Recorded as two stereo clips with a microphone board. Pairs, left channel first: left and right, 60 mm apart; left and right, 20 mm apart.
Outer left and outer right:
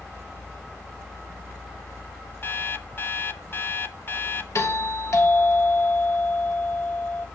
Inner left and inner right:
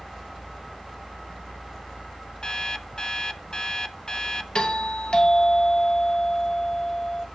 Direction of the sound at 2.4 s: 40° left (ahead or behind).